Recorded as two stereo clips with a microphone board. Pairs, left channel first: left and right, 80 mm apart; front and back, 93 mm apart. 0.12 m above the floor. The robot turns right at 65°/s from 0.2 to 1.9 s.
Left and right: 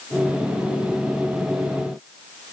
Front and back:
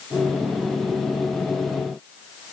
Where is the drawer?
No drawer in this recording.